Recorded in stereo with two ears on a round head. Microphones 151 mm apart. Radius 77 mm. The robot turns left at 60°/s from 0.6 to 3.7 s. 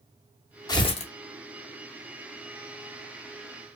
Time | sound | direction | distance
0.7 | tearing paper | 25° left (ahead or behind) | 0.7 m